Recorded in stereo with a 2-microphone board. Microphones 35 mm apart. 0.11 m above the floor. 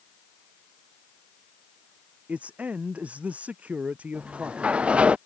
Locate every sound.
2.3 s a man speaking: 45° right (ahead or behind)
4.1 s a sliding door: 35° right (ahead or behind)